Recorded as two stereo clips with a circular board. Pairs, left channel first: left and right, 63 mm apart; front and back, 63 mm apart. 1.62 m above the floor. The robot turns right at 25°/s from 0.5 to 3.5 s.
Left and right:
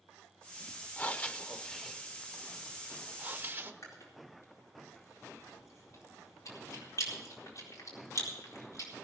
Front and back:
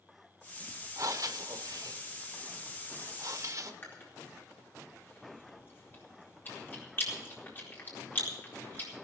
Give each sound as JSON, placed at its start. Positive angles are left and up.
{"t": 1.0, "sound": "breathing", "azimuth_deg": 145, "distance_m": 0.9}
{"t": 3.8, "sound": "chewing", "azimuth_deg": 55, "distance_m": 4.0}